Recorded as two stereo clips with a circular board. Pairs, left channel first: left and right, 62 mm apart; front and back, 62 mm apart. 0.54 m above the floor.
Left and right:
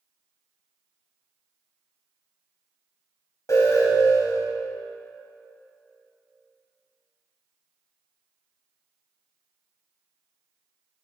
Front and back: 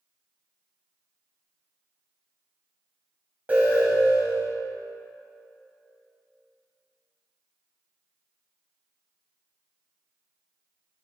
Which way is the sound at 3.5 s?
115° left.